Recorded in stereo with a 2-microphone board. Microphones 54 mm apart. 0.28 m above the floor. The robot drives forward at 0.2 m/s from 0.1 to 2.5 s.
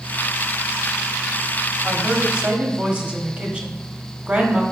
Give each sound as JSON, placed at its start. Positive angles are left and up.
{"t": 1.8, "sound": "a woman speaking", "side_deg": -25, "distance_m": 1.1}